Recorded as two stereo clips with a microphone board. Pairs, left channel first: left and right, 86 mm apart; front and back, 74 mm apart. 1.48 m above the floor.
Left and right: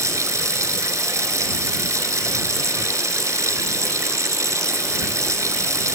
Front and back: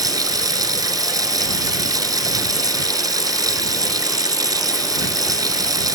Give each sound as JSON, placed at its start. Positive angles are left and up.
{"t": 0.0, "sound": "running water", "azimuth_deg": -145}